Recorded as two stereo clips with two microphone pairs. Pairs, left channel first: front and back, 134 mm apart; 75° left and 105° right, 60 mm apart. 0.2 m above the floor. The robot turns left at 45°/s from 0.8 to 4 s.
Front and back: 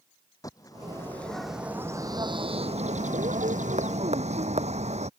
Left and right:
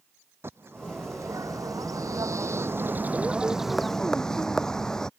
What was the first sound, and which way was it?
A bird, 60° right.